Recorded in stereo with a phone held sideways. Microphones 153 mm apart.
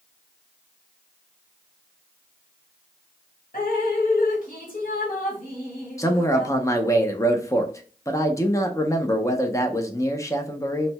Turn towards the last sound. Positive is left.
turn(degrees=20)  # may be behind; listen again after turning